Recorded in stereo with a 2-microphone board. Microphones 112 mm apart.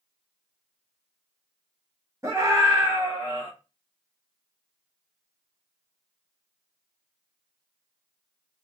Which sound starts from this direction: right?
A scream, at 2.2 s.